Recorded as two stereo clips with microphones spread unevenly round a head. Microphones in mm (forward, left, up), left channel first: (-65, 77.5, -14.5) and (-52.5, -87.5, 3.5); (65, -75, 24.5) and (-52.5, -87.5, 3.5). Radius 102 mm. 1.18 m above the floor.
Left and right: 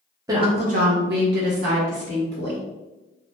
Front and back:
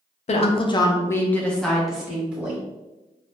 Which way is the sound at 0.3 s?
10° right.